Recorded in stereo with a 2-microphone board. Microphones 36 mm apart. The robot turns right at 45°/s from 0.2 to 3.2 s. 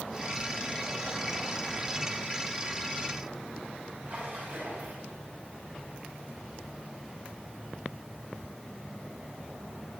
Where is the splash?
55° right (ahead or behind), 7.5 m.